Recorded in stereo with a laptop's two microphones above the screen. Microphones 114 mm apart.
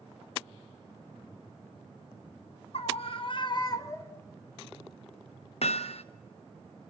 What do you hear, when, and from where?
2.7 s a scream: 60° left (ahead or behind), 1.1 m; by 4.2 s 20° left (ahead or behind), 0.9 m
5.6 s hammering: 65° left (ahead or behind), 0.6 m